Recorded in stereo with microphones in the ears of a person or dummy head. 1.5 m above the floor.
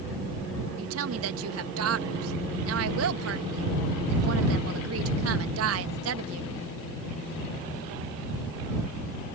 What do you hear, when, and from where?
0.8 s a woman speaking: 80° right